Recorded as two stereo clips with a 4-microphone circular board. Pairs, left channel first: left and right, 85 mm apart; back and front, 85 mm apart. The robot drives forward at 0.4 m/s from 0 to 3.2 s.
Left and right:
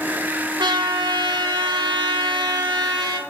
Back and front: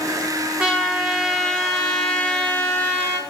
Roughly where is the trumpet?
Right.